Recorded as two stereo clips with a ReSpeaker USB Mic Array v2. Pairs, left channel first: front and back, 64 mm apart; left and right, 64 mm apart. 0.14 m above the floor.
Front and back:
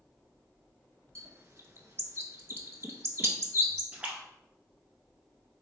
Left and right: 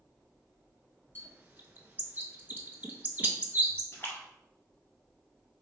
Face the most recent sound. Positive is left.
turn(degrees=120)